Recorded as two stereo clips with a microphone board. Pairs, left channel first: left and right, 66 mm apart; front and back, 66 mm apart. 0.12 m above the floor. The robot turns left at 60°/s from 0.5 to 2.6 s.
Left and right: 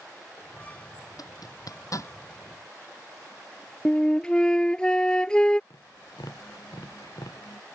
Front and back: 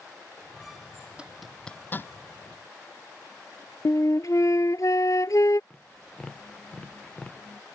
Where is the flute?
15° left.